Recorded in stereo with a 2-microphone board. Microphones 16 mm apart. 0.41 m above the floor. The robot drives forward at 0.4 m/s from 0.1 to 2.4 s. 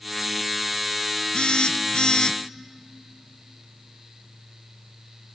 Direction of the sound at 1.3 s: 70° left (ahead or behind).